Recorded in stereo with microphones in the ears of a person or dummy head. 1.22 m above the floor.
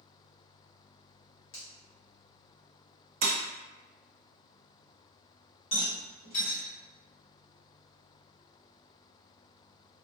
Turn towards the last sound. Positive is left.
turn(degrees=35)  # may be behind; listen again after turning